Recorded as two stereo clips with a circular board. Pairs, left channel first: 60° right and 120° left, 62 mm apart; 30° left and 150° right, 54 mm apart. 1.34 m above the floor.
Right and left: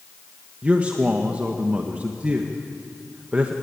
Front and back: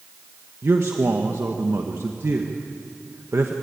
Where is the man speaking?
175° right, 1.4 m.